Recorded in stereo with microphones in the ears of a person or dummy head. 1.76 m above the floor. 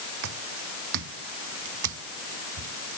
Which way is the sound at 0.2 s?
65° right (ahead or behind).